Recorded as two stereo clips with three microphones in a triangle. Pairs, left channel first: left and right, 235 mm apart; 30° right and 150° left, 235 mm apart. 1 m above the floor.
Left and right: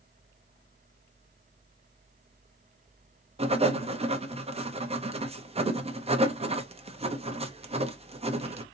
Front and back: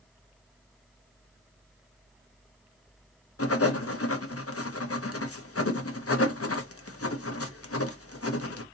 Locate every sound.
3.4 s writing: 25° right, 0.7 m